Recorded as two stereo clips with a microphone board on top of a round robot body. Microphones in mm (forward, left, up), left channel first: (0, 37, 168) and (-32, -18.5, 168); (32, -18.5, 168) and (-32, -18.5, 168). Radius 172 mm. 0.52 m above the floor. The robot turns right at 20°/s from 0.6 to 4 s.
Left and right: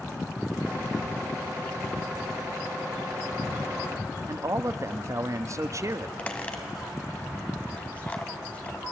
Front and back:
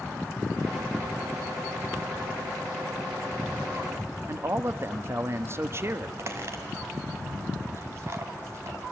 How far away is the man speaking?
About 0.9 m.